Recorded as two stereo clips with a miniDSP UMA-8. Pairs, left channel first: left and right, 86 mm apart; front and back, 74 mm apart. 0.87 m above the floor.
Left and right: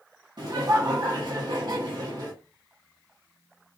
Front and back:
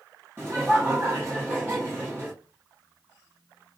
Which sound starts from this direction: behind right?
Laughter, at 0.4 s.